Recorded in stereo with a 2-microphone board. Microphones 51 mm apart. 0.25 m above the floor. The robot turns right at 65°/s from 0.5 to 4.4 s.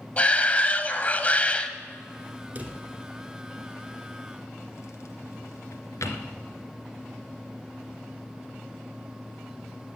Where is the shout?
60° left, 1.1 m; by 1.7 s 140° left, 1.1 m.